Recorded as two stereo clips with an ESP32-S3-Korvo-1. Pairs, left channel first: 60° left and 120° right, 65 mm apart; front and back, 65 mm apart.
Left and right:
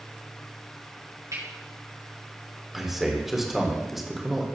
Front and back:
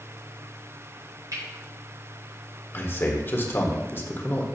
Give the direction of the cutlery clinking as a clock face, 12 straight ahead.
5 o'clock.